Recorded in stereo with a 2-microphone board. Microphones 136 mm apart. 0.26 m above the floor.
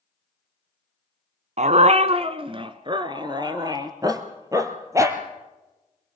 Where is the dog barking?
60° right (ahead or behind), 0.8 m; by 5.2 s 20° right (ahead or behind), 2.5 m.